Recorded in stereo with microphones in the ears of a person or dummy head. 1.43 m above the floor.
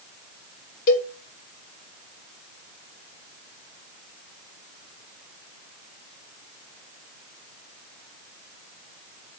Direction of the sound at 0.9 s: 45° left (ahead or behind).